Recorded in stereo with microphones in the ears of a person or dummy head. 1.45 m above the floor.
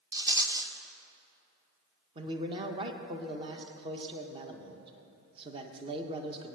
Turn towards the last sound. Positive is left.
turn(degrees=-30)  # may be behind; listen again after turning